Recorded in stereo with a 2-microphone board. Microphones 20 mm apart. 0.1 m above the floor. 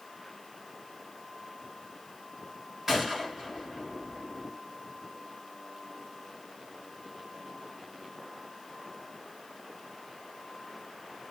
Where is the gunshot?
15° right (ahead or behind), 1.8 m.